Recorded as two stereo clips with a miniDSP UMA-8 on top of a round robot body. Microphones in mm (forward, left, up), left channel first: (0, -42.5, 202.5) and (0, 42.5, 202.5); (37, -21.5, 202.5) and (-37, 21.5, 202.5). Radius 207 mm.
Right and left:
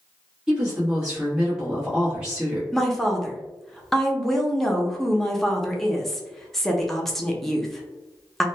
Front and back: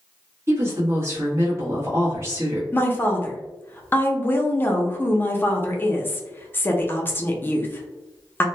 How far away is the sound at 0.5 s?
About 1.2 m.